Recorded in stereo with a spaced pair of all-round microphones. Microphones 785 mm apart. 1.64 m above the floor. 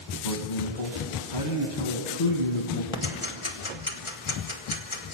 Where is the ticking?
40° left (ahead or behind), 1.4 m.